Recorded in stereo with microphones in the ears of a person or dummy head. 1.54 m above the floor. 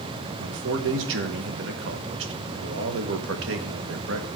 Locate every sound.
0.4 s a man speaking: 70° right (ahead or behind), 1.4 m